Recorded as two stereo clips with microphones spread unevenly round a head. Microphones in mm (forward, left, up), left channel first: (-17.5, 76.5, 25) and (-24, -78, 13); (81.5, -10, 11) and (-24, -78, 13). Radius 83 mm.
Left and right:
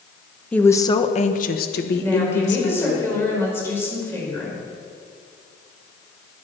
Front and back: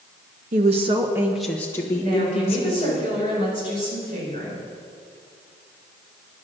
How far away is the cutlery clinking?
I don't hear cutlery clinking.